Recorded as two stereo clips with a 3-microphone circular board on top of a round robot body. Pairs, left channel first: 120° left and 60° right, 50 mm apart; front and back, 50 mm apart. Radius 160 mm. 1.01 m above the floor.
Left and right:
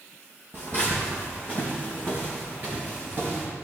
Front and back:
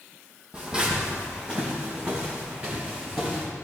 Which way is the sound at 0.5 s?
110° right.